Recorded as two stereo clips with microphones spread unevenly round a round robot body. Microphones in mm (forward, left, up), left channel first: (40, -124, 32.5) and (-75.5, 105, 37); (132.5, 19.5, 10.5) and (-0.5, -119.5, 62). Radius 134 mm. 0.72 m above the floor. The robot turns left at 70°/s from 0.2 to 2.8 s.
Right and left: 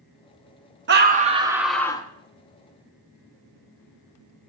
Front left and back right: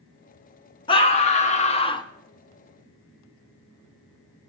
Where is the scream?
85° left, 0.6 m; by 2.1 s straight ahead, 0.6 m.